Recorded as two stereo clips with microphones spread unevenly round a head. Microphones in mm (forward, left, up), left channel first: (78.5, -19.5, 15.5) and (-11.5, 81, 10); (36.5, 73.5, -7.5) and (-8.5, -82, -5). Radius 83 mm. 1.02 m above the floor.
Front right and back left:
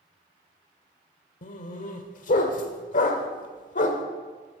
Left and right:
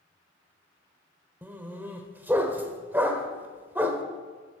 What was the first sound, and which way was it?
A dog barking, 30° right.